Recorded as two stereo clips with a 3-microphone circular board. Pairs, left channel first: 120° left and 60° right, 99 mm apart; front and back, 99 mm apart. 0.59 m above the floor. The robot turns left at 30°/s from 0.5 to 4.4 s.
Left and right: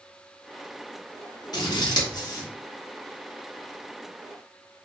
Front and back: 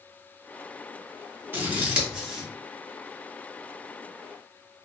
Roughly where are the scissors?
Behind left.